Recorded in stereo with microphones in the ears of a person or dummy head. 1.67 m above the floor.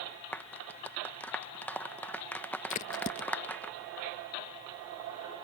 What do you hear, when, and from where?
0.3 s a clap: 10° left (ahead or behind)
2.7 s a crack: 35° left (ahead or behind)